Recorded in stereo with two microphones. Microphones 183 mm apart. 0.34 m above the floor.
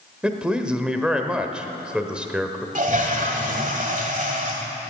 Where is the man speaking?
5° right (ahead or behind), 1.1 m.